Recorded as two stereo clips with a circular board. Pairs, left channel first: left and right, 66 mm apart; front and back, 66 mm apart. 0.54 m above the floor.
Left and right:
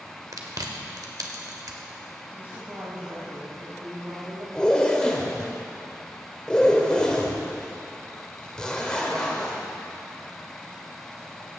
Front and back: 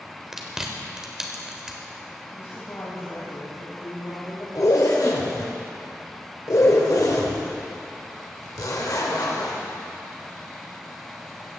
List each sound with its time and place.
0.3 s chewing: 100° right, 1.5 m
2.3 s a woman speaking: 45° right, 3 m
4.5 s a zipper: 15° left, 1.9 m